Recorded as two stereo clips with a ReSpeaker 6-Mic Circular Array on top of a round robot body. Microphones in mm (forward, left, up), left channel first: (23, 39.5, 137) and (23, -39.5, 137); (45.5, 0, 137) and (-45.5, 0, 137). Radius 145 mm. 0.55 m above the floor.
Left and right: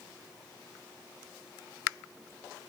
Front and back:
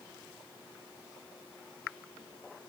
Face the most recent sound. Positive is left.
No sound to turn to.